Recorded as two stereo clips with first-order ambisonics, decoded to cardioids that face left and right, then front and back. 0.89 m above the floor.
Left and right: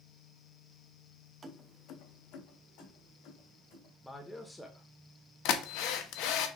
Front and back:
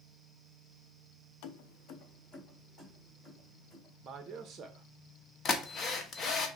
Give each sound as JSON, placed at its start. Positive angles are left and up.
{"t": 1.4, "sound": "keys jangling", "azimuth_deg": -20, "distance_m": 0.5}
{"t": 4.0, "sound": "a man speaking", "azimuth_deg": 175, "distance_m": 0.6}
{"t": 5.5, "sound": "a drill", "azimuth_deg": 65, "distance_m": 0.7}